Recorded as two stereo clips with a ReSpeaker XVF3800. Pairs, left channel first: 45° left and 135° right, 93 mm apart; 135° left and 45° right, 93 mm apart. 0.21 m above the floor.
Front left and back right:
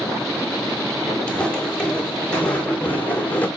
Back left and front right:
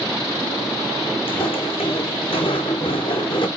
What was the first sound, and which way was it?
Footsteps, 125° left.